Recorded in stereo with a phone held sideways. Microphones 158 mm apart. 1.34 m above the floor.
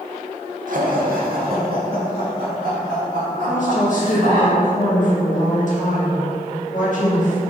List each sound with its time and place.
0.7 s laughter: 65° right (ahead or behind), 0.9 m; by 4.5 s 75° right (ahead or behind), 3 m
3.5 s a woman speaking: 60° left (ahead or behind), 1.7 m